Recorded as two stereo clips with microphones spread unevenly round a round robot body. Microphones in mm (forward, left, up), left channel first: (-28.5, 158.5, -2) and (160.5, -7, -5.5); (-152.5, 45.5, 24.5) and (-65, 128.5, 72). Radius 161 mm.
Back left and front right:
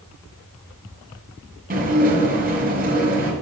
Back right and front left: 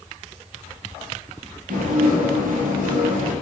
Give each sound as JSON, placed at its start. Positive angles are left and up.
{"t": 1.7, "sound": "dishes clattering", "azimuth_deg": 10, "distance_m": 2.5}